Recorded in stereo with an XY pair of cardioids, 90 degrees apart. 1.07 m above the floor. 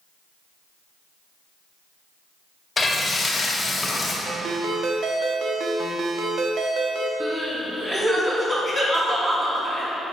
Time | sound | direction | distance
2.8 | frying | 30° left | 2.5 m
4.2 | a ringtone | 65° right | 1.2 m
7.2 | crying | 30° right | 3 m